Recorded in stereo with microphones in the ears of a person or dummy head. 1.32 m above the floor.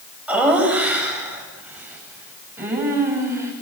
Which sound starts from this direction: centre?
Laughter, at 0.3 s.